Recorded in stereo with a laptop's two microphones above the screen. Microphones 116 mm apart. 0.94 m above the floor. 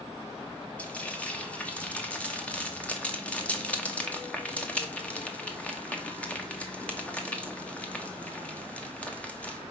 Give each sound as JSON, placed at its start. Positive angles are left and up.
{"t": 0.8, "sound": "frying", "side_deg": 10, "distance_m": 1.5}